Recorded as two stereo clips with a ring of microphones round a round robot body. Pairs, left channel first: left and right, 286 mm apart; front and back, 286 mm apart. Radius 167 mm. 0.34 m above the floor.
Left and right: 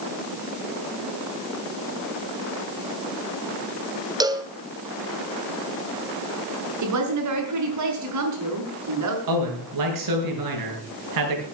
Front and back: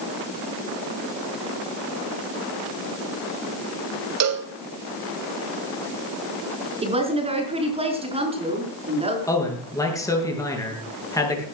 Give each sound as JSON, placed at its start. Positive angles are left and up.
{"t": 4.2, "sound": "a cowbell", "azimuth_deg": -165, "distance_m": 1.9}
{"t": 6.8, "sound": "a woman speaking", "azimuth_deg": -110, "distance_m": 5.5}
{"t": 9.3, "sound": "a man speaking", "azimuth_deg": -80, "distance_m": 6.0}